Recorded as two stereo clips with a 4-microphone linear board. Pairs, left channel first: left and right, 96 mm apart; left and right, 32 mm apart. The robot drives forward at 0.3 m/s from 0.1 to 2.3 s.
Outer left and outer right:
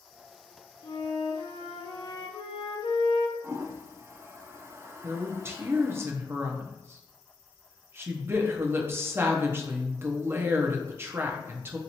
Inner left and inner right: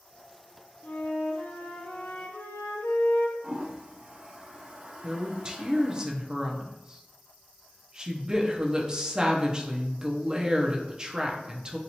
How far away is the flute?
About 0.7 m.